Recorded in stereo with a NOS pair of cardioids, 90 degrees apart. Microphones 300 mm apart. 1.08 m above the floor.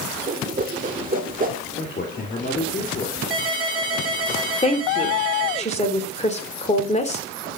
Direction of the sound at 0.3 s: 30° right.